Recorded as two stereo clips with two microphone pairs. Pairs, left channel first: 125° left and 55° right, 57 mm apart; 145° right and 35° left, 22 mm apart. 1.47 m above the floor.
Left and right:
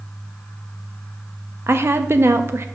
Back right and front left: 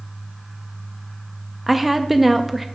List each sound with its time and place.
1.7 s a woman speaking: 45° right, 0.6 m